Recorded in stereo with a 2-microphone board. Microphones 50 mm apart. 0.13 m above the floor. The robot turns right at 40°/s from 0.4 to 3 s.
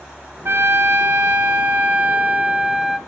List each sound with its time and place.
0.5 s a trumpet: 110° right, 0.7 m; by 3.0 s 10° right, 0.7 m